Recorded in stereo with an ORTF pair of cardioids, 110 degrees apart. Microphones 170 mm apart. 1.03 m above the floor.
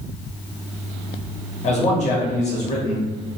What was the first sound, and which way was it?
A man speaking, 45° left.